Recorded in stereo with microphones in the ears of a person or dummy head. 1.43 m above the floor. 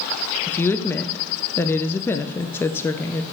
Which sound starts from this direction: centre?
A woman speaking, at 0.5 s.